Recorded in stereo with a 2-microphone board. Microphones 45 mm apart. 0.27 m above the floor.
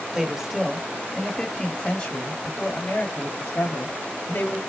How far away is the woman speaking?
About 1.5 m.